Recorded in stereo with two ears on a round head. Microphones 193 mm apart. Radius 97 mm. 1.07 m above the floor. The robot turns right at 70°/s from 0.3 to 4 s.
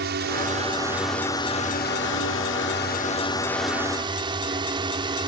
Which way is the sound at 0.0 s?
55° right.